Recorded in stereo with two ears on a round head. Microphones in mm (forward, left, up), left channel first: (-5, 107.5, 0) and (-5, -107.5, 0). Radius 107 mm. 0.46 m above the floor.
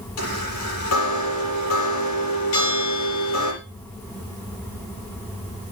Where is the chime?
65° left (ahead or behind), 6.5 m.